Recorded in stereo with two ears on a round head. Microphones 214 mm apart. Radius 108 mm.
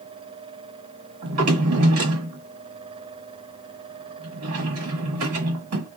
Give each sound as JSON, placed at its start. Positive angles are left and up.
{"t": 1.2, "sound": "a drawer", "side_deg": -70, "distance_m": 1.4}